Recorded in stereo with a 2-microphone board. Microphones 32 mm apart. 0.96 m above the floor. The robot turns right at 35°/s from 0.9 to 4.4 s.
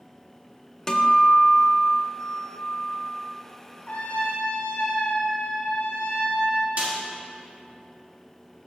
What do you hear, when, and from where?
0.9 s a guitar: 40° left, 0.5 m; by 3.2 s 120° left, 0.5 m
3.9 s a trumpet: 45° left (ahead or behind), 0.9 m; by 6.7 s 60° left (ahead or behind), 0.9 m
6.8 s a snare drum: 55° right (ahead or behind), 1.7 m